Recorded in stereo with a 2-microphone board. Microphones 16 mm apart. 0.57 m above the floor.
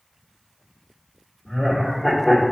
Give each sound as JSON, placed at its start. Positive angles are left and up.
{"t": 1.4, "sound": "laughter", "side_deg": 45, "distance_m": 1.6}